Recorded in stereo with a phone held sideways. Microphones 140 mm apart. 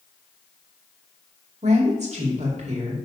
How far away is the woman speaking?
About 2 m.